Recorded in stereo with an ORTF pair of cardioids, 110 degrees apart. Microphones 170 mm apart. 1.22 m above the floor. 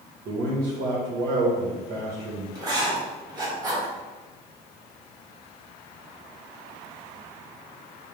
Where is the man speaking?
65° right, 1.1 m.